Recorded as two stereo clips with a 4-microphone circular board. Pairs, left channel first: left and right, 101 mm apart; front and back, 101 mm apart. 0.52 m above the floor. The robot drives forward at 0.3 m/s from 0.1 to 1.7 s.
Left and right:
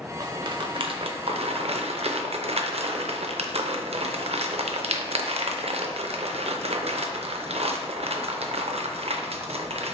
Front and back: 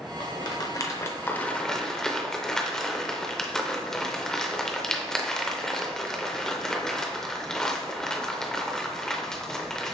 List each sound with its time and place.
0.2 s a rattle: 45° right, 0.7 m; by 9.9 s 85° right, 0.5 m